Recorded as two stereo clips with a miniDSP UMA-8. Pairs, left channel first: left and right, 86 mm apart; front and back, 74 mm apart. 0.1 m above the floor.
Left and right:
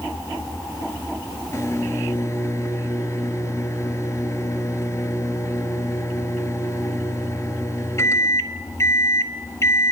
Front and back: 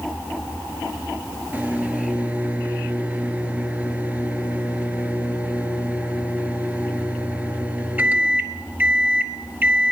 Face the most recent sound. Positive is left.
turn(degrees=120)